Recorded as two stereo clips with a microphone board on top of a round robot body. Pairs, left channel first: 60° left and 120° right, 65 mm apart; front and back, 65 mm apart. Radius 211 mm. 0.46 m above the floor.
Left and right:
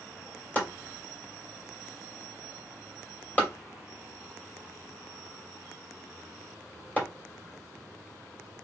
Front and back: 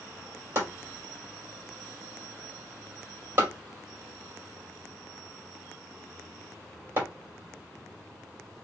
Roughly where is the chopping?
Behind left.